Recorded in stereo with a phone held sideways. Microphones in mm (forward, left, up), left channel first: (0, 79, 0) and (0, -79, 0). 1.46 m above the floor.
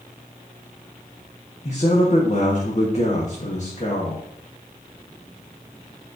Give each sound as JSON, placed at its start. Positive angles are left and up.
{"t": 1.6, "sound": "a man speaking", "side_deg": 50, "distance_m": 1.3}